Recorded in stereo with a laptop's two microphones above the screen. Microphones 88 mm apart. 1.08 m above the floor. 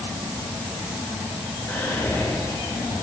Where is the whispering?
30° left (ahead or behind), 3 m.